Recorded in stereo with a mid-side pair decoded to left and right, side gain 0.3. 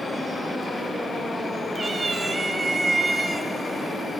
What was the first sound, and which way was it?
A cat meowing, 50° right.